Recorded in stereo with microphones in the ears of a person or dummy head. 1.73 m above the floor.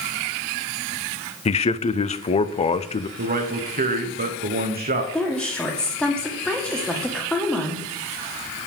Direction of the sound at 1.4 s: 25° left (ahead or behind).